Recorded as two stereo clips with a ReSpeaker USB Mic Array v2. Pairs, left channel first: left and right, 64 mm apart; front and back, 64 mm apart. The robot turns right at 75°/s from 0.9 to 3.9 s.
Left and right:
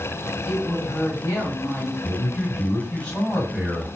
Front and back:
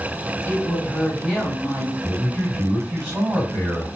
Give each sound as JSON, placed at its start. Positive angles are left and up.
{"t": 0.5, "sound": "a woman speaking", "azimuth_deg": 65, "distance_m": 1.3}
{"t": 2.0, "sound": "a man speaking", "azimuth_deg": 75, "distance_m": 1.8}